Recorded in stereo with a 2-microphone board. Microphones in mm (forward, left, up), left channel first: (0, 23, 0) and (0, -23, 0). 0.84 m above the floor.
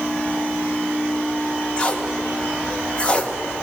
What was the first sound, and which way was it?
Tape being pulled, 25° left (ahead or behind).